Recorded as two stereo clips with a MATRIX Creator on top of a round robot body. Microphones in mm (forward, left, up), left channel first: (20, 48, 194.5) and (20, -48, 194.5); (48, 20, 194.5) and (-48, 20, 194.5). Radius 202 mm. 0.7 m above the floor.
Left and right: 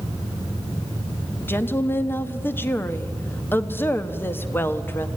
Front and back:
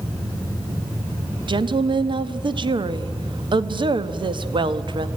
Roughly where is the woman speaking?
Behind left.